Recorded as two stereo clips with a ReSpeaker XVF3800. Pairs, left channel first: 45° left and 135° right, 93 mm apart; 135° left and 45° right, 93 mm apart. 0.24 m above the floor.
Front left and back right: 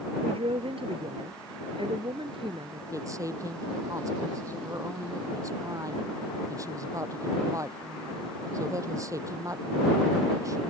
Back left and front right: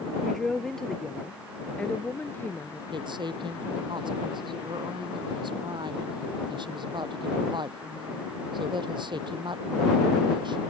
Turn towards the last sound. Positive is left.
turn(degrees=-80)